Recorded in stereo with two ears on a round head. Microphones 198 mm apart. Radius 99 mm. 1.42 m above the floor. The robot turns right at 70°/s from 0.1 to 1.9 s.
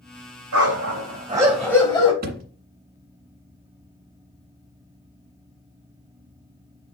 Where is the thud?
40° right (ahead or behind), 1.8 m.